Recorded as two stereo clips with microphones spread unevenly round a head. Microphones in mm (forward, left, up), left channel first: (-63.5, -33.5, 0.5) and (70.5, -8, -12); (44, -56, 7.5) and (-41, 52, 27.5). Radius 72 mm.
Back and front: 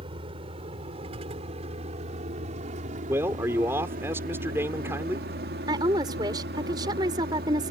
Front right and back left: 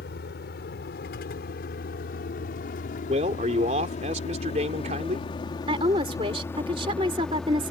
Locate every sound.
0.0 s a vehicle: 40° right; by 7.7 s 45° left
3.1 s a man speaking: 85° left
5.7 s a woman speaking: 75° left